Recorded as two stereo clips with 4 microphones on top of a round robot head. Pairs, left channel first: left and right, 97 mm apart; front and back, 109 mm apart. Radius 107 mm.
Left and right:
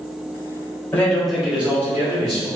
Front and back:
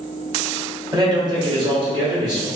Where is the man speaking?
155° left, 1.4 m; by 2.5 s 135° right, 2.0 m.